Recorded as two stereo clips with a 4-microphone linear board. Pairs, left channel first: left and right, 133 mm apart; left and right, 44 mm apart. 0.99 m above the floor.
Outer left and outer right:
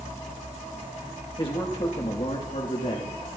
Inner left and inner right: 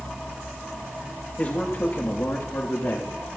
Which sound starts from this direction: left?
A man speaking, at 1.4 s.